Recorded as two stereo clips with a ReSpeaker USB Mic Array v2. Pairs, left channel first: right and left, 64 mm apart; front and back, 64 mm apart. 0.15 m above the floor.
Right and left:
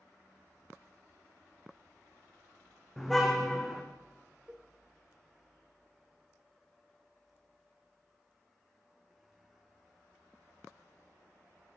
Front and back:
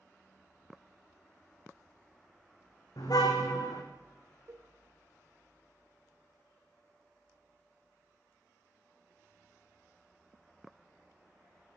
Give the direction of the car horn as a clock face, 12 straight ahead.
12 o'clock.